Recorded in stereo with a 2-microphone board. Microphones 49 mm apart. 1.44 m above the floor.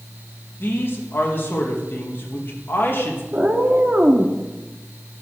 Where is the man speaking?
45° left (ahead or behind), 2.5 m.